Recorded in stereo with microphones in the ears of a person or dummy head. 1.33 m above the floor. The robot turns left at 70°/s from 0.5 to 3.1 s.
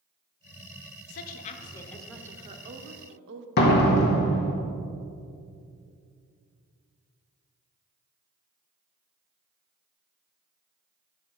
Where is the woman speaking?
70° left, 0.7 m; by 3.5 s 75° right, 0.7 m.